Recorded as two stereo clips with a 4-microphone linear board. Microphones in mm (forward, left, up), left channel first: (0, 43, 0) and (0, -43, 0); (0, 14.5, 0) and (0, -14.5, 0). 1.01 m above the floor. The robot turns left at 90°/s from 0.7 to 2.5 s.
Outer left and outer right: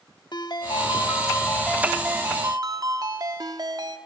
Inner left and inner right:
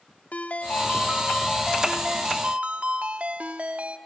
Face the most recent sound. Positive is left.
turn(degrees=-60)